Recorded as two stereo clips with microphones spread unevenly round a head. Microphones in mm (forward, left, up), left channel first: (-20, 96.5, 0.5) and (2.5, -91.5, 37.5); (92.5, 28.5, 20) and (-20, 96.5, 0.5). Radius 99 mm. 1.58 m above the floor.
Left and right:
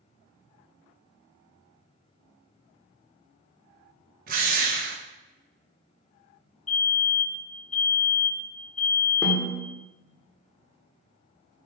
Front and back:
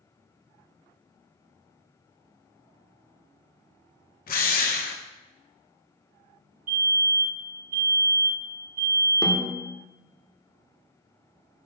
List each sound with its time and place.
4.3 s a drill: 35° right, 1.6 m
6.7 s a fire alarm: 145° left, 4.5 m
9.2 s a snare drum: 10° left, 1.5 m